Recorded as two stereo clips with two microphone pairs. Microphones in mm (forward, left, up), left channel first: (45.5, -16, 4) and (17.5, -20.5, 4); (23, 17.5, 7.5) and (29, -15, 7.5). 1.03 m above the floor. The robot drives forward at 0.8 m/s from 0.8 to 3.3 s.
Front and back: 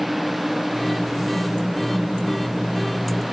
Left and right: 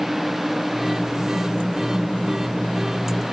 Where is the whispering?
No whispering in this recording.